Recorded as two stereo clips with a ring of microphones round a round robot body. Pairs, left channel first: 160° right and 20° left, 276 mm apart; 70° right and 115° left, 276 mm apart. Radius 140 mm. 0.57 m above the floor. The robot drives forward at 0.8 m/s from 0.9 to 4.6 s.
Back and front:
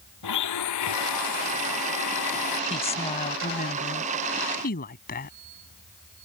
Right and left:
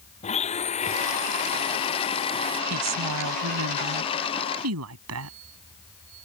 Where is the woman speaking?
135° left; by 5.3 s 145° left.